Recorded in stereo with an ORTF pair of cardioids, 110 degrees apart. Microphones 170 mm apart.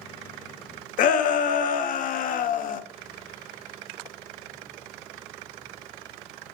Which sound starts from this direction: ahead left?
A shout, at 1.0 s.